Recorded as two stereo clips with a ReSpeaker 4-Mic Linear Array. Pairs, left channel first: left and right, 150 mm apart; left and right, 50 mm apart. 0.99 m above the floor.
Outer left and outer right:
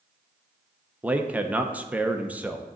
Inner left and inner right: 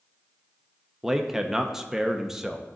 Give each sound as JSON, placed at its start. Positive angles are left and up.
{"t": 1.0, "sound": "a man speaking", "side_deg": -10, "distance_m": 0.6}